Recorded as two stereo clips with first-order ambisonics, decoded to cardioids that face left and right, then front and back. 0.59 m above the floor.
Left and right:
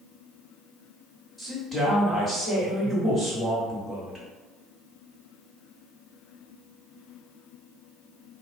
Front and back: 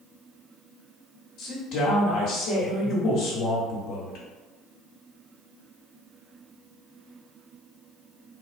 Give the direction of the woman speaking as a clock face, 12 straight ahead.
11 o'clock.